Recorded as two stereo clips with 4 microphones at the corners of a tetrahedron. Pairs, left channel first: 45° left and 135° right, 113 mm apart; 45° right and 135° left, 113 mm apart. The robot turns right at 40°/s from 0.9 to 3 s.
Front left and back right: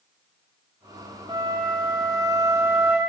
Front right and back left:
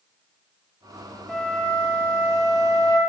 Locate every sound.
1.3 s a flute: 130° right, 1.4 m; by 3.0 s 60° right, 1.4 m